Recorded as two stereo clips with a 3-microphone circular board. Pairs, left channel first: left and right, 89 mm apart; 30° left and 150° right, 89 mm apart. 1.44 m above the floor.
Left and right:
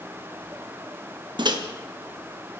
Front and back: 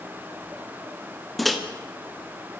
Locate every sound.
1.4 s a microwave: 60° right, 1.4 m